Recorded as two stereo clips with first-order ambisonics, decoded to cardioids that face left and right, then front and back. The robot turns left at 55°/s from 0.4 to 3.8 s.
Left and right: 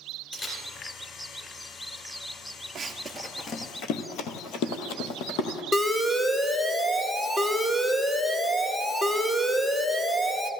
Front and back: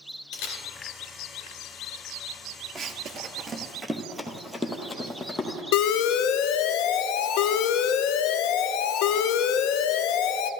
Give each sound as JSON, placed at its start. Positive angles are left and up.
{"t": 0.3, "sound": "a camera shutter", "azimuth_deg": 5, "distance_m": 2.5}
{"t": 2.8, "sound": "running footsteps", "azimuth_deg": -135, "distance_m": 0.7}
{"t": 5.7, "sound": "an alarm", "azimuth_deg": 5, "distance_m": 0.5}